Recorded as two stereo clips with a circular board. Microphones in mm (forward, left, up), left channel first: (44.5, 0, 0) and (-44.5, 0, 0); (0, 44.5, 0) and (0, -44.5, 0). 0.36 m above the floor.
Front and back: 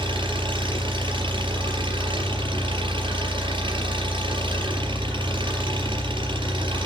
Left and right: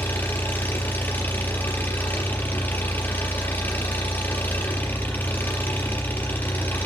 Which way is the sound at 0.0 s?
160° left.